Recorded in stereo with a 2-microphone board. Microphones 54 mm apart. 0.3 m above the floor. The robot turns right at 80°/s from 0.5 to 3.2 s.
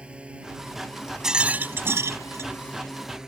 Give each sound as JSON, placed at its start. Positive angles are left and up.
{"t": 0.0, "sound": "a drone", "side_deg": -20}
{"t": 1.2, "sound": "a rattle", "azimuth_deg": -170}